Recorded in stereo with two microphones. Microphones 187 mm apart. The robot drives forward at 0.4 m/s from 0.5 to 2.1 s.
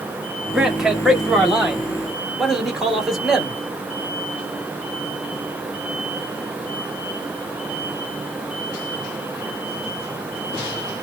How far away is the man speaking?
About 0.8 m.